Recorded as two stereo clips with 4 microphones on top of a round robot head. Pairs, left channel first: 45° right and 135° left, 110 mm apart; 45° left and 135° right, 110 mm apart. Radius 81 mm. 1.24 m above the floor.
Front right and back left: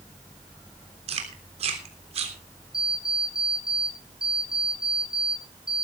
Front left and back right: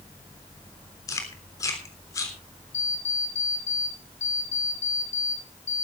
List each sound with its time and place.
1.1 s chewing: 105° left, 3.5 m
2.7 s an alarm clock: 50° left, 8 m